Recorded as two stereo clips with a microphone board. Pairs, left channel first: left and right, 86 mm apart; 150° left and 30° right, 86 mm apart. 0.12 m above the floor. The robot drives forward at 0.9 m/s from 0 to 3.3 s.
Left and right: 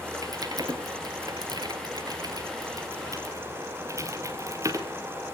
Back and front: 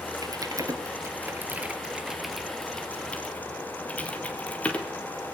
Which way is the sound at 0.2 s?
60° right.